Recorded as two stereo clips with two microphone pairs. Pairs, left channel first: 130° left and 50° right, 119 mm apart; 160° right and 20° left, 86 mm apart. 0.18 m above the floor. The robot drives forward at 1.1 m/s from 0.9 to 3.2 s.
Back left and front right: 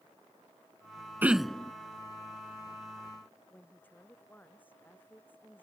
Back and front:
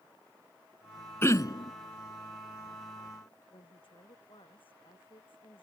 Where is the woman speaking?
155° right.